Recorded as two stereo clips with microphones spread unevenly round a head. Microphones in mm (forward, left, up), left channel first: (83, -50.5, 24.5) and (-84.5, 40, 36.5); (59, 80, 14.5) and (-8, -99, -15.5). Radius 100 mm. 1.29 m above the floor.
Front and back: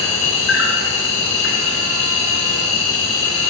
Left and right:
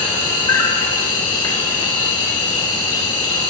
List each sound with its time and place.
0.0 s an insect: 5° left, 3 m